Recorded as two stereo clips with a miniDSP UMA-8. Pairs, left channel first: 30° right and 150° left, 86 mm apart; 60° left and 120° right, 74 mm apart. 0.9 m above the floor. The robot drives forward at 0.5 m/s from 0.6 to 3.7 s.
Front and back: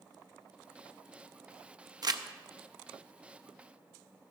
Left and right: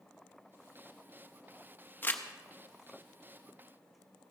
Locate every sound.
2.0 s crumpling: 120° left, 0.8 m; by 2.2 s 125° left, 0.8 m